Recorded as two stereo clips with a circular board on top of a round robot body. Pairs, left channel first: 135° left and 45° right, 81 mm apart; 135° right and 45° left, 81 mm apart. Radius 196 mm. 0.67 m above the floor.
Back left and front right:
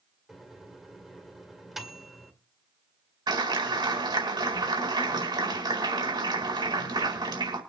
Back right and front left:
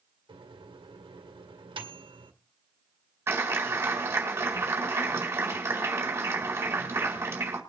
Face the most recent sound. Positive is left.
turn(degrees=-15)